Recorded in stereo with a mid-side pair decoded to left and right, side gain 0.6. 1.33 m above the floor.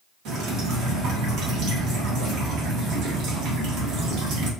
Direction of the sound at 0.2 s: 65° right.